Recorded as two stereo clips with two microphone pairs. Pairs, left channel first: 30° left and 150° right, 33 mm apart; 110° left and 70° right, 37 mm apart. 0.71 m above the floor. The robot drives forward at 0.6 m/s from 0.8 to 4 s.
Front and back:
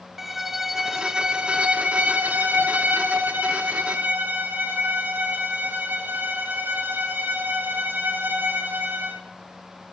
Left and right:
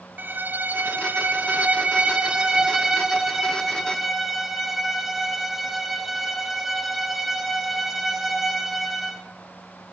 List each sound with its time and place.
0.2 s a violin: 70° right, 0.9 m; by 9.2 s 155° right, 1.9 m